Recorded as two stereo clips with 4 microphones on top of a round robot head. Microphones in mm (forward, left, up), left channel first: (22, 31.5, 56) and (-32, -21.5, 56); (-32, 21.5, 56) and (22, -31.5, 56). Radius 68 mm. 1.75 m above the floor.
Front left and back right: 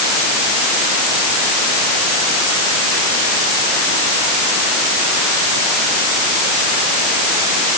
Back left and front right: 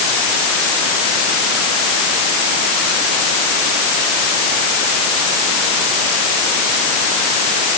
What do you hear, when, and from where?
Only background noise.